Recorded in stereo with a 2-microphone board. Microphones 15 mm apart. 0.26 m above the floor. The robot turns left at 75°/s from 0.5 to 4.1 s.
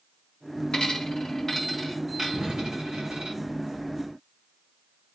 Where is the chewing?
No chewing in this recording.